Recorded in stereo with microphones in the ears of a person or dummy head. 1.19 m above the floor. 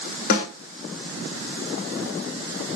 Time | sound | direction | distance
0.3 | a snare drum | 50° left (ahead or behind) | 1.4 m